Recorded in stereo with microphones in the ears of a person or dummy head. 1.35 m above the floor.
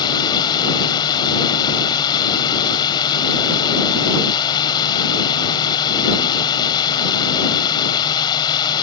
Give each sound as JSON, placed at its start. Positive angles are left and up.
{"t": 0.0, "sound": "a drone", "side_deg": 25}